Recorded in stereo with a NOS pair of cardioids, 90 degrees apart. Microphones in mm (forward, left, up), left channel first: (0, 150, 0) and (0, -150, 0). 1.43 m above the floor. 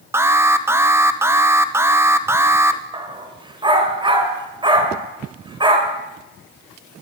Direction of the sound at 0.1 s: 10° right.